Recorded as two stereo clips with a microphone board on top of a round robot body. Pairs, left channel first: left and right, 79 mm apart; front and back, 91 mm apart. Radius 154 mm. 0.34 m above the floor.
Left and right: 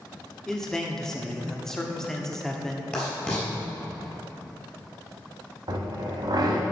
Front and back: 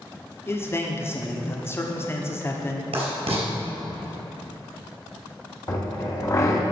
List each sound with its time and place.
0.5 s a man speaking: 10° left, 1.4 m
2.9 s writing: 165° left, 3.5 m
5.7 s a drill: 55° right, 1.9 m